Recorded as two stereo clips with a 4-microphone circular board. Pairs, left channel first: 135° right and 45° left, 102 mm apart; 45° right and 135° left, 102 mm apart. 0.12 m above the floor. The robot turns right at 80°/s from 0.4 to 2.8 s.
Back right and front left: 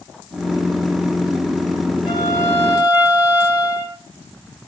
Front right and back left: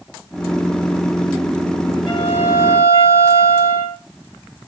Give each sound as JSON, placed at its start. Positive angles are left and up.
{"t": 2.1, "sound": "a violin", "azimuth_deg": -90, "distance_m": 6.0}